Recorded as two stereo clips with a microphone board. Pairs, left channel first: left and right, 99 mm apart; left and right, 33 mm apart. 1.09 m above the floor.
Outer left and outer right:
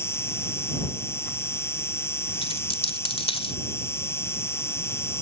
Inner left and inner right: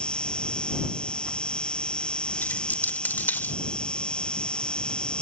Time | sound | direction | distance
0.0 | an insect | 25° left (ahead or behind) | ?
2.4 | a dropped coin | 70° left (ahead or behind) | ?